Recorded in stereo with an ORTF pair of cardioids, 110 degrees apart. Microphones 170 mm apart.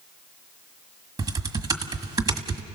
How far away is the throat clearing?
I don't hear throat clearing.